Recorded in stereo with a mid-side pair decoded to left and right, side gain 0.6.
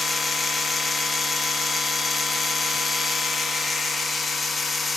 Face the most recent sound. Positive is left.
turn(degrees=15)